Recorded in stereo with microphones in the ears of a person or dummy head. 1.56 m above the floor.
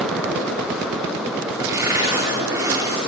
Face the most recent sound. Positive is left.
turn(degrees=-10)  # may be behind; listen again after turning